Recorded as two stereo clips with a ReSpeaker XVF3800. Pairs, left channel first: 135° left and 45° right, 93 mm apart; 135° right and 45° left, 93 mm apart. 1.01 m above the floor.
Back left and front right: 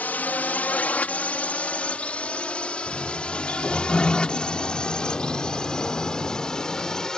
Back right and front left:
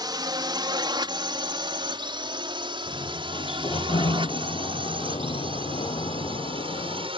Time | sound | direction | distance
0.0 | a drone | 65° left | ?
2.9 | a sliding door | 150° right | ?